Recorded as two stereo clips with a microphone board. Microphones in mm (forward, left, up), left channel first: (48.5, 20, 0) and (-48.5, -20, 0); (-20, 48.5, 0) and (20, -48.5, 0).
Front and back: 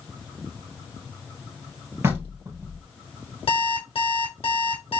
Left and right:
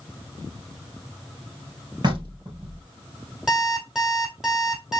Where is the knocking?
100° right, 2.5 m.